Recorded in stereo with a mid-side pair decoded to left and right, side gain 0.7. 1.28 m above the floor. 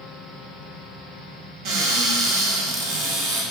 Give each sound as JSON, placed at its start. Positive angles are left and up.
{"t": 1.6, "sound": "a cupboard door", "azimuth_deg": -65, "distance_m": 0.8}